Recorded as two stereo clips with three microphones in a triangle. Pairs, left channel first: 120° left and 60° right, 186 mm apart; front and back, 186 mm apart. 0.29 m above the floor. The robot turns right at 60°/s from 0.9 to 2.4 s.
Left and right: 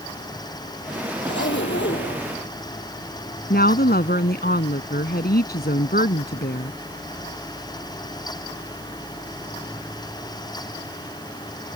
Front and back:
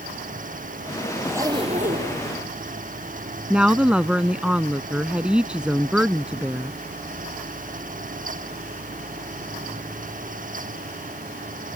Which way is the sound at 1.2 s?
95° left.